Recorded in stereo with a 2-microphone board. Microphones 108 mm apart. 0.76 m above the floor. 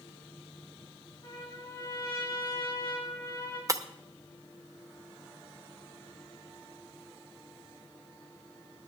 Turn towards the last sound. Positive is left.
turn(degrees=-30)  # may be behind; listen again after turning